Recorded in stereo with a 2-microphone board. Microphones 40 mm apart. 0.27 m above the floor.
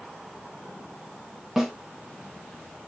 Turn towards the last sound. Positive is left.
turn(degrees=-10)  # may be behind; listen again after turning